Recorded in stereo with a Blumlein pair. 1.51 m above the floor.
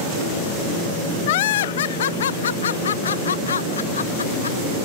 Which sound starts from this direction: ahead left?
Laughter, at 1.3 s.